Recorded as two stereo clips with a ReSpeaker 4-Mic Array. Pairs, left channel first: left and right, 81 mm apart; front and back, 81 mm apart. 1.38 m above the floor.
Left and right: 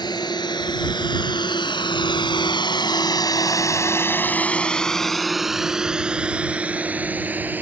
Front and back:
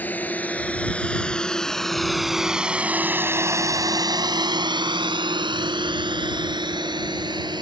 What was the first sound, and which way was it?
A drone, 70° left.